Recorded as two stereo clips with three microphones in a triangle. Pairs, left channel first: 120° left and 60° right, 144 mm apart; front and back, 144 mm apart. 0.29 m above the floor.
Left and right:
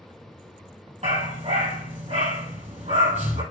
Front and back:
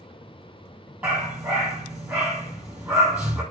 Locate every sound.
1.0 s a dog barking: 100° right, 2.5 m